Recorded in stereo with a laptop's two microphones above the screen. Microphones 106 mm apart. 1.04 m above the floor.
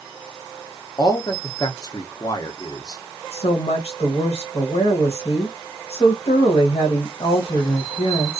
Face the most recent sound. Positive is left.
turn(degrees=80)